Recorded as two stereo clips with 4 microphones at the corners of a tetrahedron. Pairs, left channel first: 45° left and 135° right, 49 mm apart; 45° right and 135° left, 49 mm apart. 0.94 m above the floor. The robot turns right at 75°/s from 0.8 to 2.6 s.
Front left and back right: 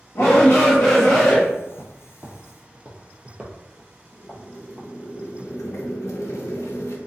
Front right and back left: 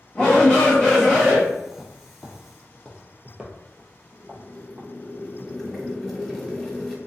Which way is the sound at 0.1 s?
25° left.